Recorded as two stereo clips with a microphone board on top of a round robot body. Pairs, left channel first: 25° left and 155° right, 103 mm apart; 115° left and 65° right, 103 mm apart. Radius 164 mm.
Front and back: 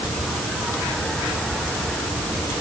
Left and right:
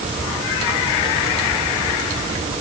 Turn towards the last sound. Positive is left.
No sound to turn to.